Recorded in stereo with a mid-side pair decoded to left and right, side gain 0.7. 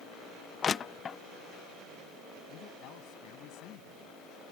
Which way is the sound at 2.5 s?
60° left.